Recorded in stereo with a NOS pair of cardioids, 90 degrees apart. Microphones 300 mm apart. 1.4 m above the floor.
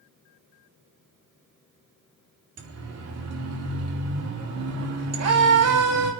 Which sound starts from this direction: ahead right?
A siren, at 2.6 s.